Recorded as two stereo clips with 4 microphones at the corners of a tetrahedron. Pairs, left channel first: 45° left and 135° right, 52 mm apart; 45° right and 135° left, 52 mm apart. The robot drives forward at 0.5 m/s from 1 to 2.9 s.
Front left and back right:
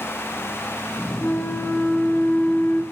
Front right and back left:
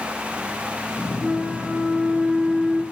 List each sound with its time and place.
1.2 s a flute: 40° left, 2 m; by 2.8 s 70° left, 1.8 m